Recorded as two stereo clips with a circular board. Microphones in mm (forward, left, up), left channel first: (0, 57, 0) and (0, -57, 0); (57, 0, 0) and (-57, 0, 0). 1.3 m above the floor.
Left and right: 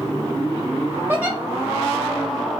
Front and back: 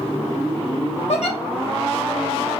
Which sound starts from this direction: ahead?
A giggle, at 1.1 s.